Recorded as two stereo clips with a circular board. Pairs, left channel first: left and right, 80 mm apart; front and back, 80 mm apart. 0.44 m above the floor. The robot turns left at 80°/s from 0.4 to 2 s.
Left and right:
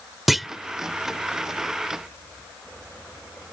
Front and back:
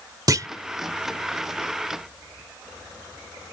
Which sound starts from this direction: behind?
A clunk, at 0.3 s.